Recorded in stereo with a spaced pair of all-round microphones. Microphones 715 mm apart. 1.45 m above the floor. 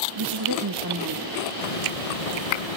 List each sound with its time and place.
0.1 s a woman speaking: 35° right (ahead or behind), 1.2 m; by 1.4 s 25° right (ahead or behind), 2.5 m
1.6 s a hiss: 55° left (ahead or behind), 1.0 m